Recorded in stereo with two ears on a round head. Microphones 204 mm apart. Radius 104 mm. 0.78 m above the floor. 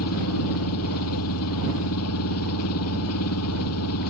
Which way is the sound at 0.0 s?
70° left (ahead or behind).